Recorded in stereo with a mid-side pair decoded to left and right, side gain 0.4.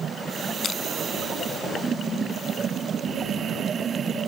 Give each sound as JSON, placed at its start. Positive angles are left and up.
{"t": 0.6, "sound": "crushing", "azimuth_deg": 55}